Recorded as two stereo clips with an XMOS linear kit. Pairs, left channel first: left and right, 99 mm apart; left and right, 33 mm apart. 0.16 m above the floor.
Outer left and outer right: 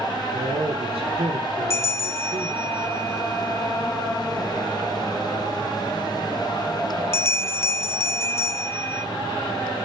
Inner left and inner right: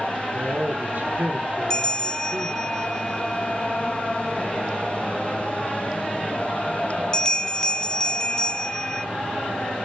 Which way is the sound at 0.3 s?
70° right (ahead or behind).